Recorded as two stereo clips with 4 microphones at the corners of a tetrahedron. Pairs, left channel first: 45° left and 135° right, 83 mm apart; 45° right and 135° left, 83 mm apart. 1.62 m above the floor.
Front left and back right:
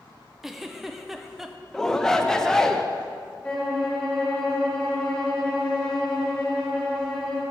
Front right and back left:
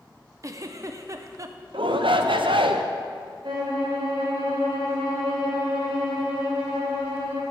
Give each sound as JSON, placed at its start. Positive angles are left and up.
{"t": 0.4, "sound": "a giggle", "azimuth_deg": 140, "distance_m": 0.5}
{"t": 1.7, "sound": "a shout", "azimuth_deg": 130, "distance_m": 0.7}
{"t": 3.4, "sound": "a violin", "azimuth_deg": 130, "distance_m": 3.0}